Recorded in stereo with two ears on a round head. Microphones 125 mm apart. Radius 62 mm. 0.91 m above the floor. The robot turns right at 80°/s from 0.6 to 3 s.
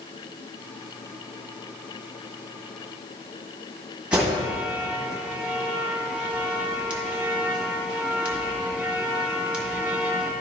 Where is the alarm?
10° right (ahead or behind), 1.5 m.